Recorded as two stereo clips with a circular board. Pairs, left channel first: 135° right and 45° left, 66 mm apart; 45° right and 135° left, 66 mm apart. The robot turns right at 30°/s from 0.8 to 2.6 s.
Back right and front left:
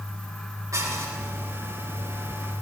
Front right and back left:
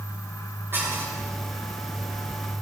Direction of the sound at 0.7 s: 80° left.